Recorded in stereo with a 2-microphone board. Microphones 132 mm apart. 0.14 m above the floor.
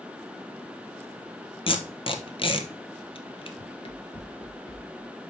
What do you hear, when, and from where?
1.7 s tape being pulled: 45° left (ahead or behind), 1.0 m
3.6 s running footsteps: 60° left (ahead or behind), 0.8 m; by 5.2 s 15° left (ahead or behind), 1.6 m